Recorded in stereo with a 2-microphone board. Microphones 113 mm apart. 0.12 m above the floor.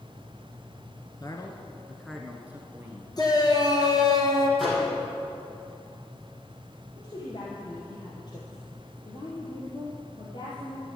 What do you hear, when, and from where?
1.2 s a man speaking: 40° left (ahead or behind), 1.5 m; by 3.1 s 25° right (ahead or behind), 2 m
3.2 s a shout: 40° left (ahead or behind), 2.5 m
4.6 s a microwave: centre (ahead or behind), 4.5 m
7.0 s a woman speaking: 40° left (ahead or behind), 2.5 m